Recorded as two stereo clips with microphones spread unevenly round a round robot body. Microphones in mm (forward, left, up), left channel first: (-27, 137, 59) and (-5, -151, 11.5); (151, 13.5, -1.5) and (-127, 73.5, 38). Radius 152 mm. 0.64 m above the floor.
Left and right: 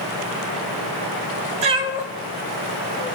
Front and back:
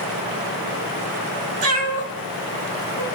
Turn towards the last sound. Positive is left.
turn(degrees=140)